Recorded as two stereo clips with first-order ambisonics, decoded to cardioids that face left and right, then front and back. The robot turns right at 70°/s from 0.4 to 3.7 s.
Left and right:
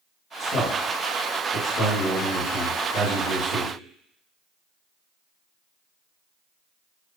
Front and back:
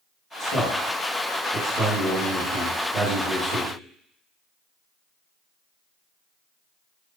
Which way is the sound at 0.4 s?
25° left.